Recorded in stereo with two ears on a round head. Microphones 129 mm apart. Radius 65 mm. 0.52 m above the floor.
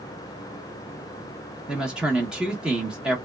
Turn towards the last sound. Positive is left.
turn(degrees=-5)  # may be behind; listen again after turning